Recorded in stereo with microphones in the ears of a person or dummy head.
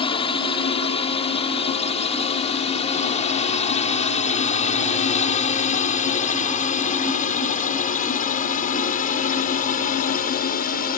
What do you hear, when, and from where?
0.0 s a drone: 30° left (ahead or behind); by 11.0 s 50° left (ahead or behind)